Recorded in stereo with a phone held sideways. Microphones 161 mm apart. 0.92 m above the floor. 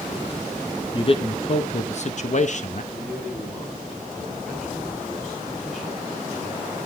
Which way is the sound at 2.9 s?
Centre (ahead or behind).